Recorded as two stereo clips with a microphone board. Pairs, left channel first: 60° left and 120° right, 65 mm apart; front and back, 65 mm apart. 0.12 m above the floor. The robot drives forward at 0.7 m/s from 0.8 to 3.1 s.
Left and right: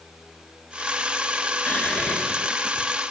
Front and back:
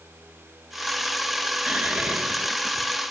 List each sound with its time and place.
1.7 s whispering: 115° left, 1.6 m; by 2.9 s 145° left, 2 m